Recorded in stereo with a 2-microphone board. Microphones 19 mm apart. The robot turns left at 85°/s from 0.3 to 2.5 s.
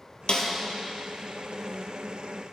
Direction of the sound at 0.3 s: 55° left (ahead or behind).